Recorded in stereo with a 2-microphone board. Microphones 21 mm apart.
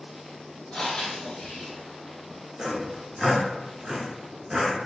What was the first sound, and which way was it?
Breathing, 40° left (ahead or behind).